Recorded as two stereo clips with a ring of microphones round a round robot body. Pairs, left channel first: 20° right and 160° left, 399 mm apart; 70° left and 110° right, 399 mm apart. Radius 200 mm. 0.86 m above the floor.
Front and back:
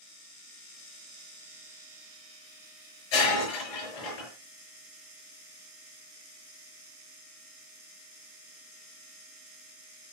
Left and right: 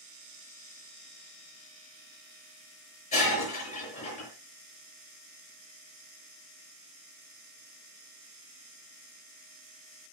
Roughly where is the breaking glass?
Ahead.